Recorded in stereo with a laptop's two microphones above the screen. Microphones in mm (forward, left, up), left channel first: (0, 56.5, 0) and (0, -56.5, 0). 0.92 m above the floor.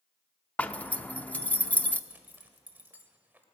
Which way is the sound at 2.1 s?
15° right (ahead or behind).